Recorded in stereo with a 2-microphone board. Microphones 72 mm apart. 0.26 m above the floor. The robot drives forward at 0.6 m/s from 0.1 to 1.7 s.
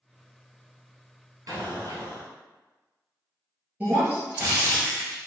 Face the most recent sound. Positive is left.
turn(degrees=-25)  # may be behind; listen again after turning